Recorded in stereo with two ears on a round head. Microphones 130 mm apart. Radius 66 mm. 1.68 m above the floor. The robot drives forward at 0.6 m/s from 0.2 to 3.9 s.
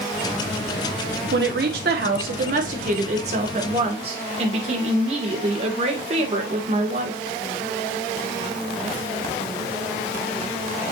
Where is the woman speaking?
85° right, 1.6 m; by 7.2 s 45° right (ahead or behind), 2 m.